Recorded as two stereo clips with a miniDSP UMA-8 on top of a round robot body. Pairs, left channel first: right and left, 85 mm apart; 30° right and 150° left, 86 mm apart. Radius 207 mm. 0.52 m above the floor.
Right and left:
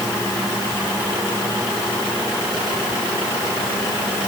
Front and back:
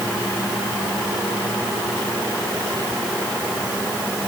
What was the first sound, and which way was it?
Only background noise.